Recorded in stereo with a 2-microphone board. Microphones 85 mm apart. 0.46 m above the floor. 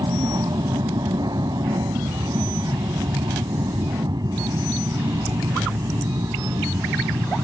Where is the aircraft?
55° right (ahead or behind); by 7.4 s 45° right (ahead or behind).